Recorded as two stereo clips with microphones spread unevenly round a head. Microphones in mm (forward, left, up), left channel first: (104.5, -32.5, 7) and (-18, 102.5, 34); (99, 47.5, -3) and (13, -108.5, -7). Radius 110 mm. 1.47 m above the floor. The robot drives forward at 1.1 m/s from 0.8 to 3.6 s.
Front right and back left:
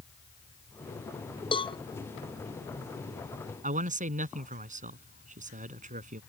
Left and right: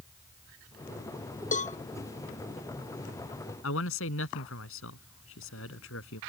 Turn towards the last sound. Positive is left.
turn(degrees=85)